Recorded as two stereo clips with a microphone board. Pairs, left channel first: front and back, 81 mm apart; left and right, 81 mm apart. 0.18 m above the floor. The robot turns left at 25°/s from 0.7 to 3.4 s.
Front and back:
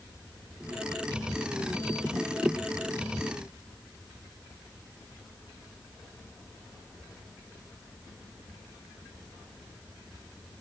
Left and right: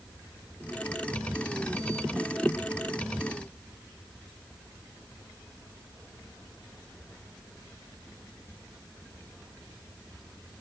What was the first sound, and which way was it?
Only background noise.